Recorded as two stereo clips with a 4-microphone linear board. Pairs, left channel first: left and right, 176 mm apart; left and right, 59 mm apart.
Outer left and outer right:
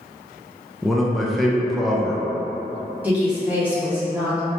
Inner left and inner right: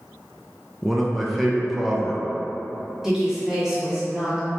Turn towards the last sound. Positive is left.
turn(degrees=-10)  # may be behind; listen again after turning